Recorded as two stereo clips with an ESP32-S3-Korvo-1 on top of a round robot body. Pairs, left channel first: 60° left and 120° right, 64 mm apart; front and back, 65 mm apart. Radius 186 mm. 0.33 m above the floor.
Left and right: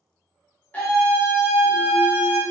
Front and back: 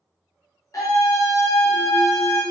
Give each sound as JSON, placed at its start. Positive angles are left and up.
{"t": 0.7, "sound": "a scream", "azimuth_deg": 0, "distance_m": 1.4}